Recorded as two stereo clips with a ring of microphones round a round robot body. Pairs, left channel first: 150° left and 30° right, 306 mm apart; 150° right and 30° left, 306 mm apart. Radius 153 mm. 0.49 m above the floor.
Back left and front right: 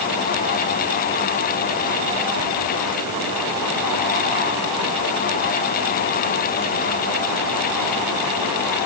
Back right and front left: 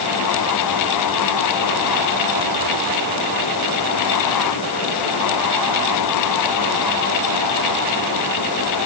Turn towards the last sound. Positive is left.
No sound to turn to.